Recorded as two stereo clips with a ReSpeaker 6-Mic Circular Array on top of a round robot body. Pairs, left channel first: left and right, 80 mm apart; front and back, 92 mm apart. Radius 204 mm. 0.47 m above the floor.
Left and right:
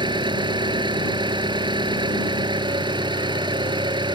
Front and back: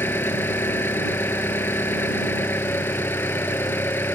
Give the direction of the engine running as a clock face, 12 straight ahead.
2 o'clock.